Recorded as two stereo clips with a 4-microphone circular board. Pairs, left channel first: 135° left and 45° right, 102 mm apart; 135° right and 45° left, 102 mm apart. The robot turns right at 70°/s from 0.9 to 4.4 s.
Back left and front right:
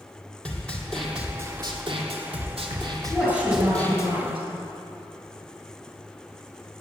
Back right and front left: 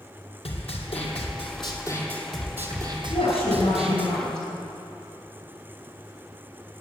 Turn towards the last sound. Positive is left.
turn(degrees=-55)